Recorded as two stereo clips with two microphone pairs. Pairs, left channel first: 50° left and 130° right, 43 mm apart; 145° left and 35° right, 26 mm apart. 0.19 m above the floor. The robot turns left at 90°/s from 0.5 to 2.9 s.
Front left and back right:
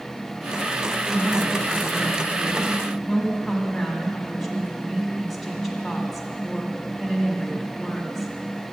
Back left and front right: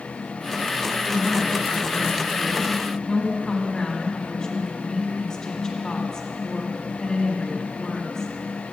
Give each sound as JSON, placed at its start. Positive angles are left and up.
{"t": 1.0, "sound": "a woman speaking", "azimuth_deg": -50, "distance_m": 1.6}